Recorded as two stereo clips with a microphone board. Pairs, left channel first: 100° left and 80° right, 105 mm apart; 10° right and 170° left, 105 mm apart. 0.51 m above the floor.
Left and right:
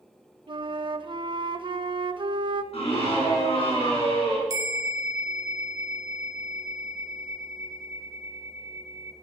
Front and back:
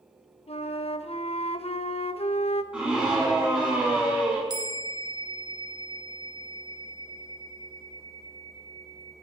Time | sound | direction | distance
0.5 | a flute | 35° right | 0.5 m
2.7 | a scream | 90° left | 5.5 m
4.5 | a bell | 135° right | 0.9 m